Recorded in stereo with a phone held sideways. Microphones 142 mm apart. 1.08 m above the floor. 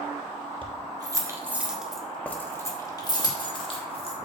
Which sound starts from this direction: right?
Keys jangling, at 0.6 s.